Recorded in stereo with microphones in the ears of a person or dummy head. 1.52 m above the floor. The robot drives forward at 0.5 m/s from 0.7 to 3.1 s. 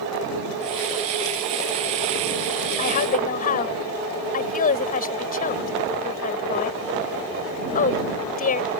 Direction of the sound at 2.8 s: 45° left (ahead or behind).